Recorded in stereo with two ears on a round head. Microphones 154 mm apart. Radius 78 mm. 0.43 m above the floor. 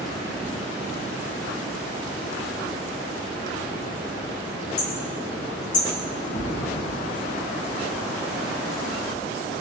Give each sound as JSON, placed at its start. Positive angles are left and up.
{"t": 4.8, "sound": "hammering", "side_deg": 50, "distance_m": 3.0}
{"t": 6.3, "sound": "a thud", "side_deg": 35, "distance_m": 4.5}